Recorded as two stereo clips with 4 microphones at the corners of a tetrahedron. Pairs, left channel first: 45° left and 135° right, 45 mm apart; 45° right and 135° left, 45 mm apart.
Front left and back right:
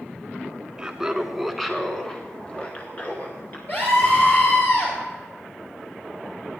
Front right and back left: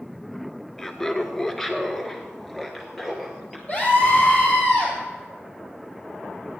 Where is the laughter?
105° right, 1.2 m; by 3.6 s 45° left, 1.6 m.